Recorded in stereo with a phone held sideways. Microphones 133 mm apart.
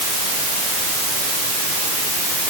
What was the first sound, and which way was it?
Only background noise.